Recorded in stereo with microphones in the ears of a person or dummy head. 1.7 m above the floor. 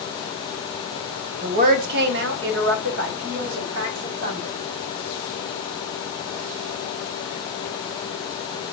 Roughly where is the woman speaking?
Right.